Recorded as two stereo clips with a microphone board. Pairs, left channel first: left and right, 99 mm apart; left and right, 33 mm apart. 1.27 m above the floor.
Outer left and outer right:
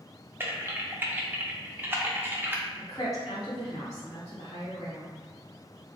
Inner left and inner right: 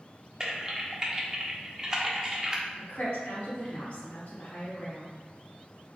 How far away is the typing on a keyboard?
About 0.5 m.